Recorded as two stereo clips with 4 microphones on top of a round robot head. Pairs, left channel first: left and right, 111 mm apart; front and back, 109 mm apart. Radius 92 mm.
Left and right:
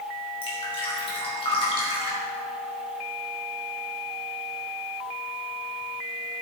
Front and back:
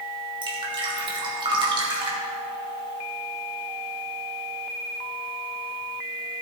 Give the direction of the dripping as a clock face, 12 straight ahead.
7 o'clock.